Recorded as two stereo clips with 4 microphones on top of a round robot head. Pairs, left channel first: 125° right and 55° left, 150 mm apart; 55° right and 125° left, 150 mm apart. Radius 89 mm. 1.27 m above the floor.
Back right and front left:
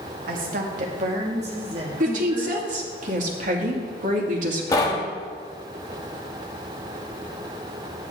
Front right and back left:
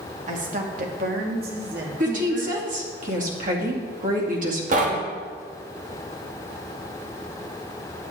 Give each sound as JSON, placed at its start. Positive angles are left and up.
{"t": 0.3, "sound": "a woman speaking", "azimuth_deg": 85, "distance_m": 1.8}
{"t": 2.0, "sound": "a woman speaking", "azimuth_deg": 90, "distance_m": 2.5}
{"t": 4.7, "sound": "knocking", "azimuth_deg": 165, "distance_m": 1.4}